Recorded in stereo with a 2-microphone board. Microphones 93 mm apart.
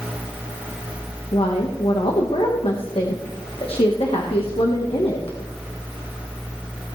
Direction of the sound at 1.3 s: 90° left.